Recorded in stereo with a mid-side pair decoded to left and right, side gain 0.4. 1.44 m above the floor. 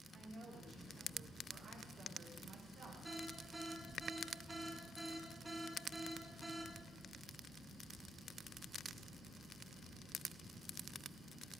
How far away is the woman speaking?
About 9 m.